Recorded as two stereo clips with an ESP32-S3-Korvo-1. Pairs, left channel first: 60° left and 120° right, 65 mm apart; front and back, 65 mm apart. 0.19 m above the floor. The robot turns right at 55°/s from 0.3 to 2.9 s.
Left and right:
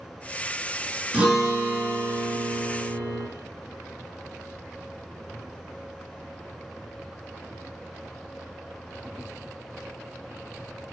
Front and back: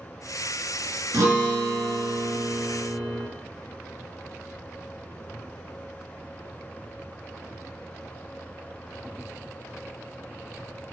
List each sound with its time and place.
1.1 s a guitar: 170° left, 1.1 m; by 3.3 s 90° right, 1.1 m